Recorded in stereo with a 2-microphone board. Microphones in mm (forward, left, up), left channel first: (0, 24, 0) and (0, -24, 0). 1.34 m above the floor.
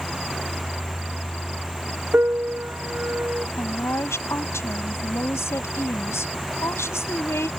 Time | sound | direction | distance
2.1 | a piano | 45° right (ahead or behind) | ?
3.6 | a woman speaking | 60° left (ahead or behind) | ?